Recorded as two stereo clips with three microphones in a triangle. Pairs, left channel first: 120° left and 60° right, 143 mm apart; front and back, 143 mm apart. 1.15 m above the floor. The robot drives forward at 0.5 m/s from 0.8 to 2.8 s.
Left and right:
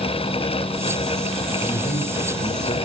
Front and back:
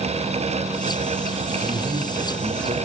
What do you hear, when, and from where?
1.6 s a man speaking: 150° left, 2.5 m; by 2.8 s 155° left, 3.5 m